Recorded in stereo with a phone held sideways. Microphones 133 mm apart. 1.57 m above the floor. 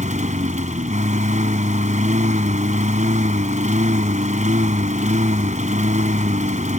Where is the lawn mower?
70° right (ahead or behind).